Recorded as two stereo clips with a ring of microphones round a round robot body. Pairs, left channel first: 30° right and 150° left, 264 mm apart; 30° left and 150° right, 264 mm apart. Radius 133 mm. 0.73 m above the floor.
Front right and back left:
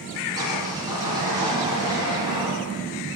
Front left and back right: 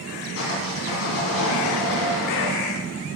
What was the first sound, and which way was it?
Sawing, 75° left.